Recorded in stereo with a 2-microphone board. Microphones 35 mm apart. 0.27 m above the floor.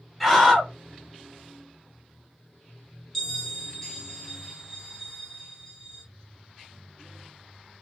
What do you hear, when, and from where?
0.2 s a scream: centre (ahead or behind), 1.0 m
3.1 s a bell: centre (ahead or behind), 1.0 m